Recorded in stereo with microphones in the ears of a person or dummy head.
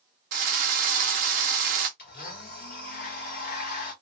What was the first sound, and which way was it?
A drill, 45° right (ahead or behind).